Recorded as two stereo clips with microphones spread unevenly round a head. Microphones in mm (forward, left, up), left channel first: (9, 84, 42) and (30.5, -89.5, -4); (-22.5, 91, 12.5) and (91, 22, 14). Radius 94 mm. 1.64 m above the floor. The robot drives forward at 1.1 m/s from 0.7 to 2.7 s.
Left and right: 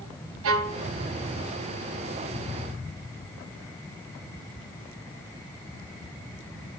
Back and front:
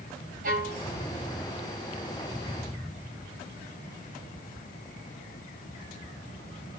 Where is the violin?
70° right, 0.7 m; by 0.8 s 85° right, 0.7 m.